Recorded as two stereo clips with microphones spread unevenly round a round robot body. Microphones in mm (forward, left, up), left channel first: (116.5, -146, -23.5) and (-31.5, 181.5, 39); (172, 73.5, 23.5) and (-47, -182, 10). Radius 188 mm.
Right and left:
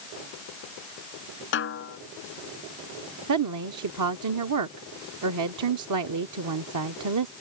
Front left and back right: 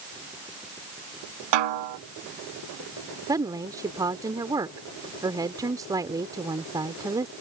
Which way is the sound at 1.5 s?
130° right.